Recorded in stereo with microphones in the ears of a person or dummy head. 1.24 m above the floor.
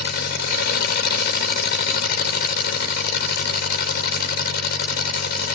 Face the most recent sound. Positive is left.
turn(degrees=55)  # may be behind; listen again after turning